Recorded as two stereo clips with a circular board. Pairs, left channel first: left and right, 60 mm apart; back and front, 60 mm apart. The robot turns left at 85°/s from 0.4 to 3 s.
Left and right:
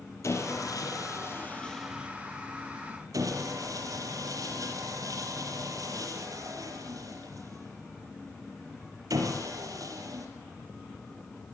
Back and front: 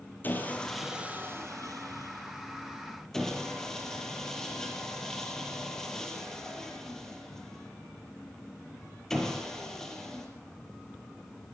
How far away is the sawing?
About 5.5 m.